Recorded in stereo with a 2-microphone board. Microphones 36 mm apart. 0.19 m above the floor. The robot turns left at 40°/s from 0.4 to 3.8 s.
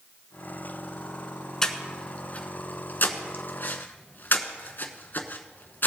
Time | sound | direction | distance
1.6 | breathing | 15° left (ahead or behind) | 1.0 m